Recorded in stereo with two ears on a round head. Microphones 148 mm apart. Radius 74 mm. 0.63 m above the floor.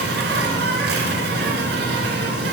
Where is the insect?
70° right (ahead or behind), 1.3 m.